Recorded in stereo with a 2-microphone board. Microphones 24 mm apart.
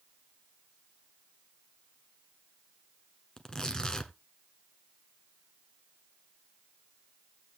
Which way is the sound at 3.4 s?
30° left (ahead or behind).